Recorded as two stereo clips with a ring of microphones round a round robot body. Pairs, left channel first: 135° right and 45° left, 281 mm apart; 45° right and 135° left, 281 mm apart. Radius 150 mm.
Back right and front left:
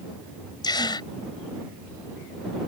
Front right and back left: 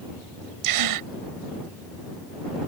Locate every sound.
0.6 s a gasp: 150° left